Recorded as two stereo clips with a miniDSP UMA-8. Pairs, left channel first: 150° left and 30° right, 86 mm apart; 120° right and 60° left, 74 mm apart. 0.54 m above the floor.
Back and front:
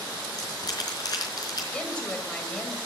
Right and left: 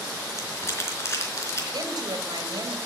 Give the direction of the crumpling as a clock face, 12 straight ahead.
6 o'clock.